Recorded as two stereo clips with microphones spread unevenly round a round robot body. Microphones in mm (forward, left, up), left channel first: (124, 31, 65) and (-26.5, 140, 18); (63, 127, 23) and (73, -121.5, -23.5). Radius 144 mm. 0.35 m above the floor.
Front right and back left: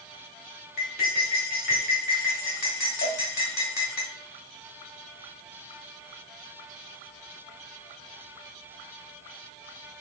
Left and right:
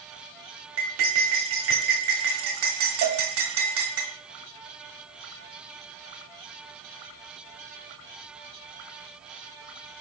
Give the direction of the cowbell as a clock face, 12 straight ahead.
3 o'clock.